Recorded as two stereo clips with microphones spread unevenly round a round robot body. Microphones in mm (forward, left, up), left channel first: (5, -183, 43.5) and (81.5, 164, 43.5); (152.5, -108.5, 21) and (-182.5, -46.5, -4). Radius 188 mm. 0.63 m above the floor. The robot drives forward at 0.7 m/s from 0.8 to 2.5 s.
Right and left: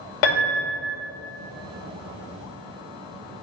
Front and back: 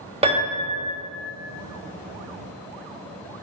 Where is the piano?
120° right, 2 m.